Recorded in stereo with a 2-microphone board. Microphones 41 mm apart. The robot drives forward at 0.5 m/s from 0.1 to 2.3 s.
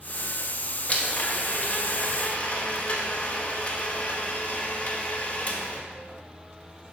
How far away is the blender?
About 0.9 m.